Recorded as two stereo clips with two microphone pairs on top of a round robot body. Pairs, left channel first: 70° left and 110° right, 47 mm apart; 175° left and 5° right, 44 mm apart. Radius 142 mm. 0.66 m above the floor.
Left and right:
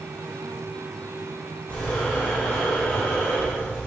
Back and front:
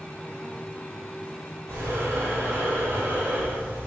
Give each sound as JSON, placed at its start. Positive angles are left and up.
{"t": 1.7, "sound": "breathing", "azimuth_deg": 0, "distance_m": 1.2}